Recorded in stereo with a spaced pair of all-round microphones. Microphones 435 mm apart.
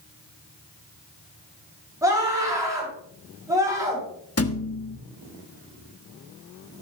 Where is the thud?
35° left (ahead or behind), 1.1 m.